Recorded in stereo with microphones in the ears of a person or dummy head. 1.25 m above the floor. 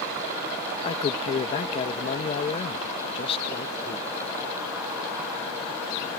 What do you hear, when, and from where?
0.8 s a man speaking: 30° left (ahead or behind)